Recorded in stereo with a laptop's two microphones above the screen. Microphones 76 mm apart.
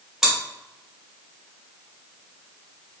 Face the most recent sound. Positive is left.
turn(degrees=-5)  # may be behind; listen again after turning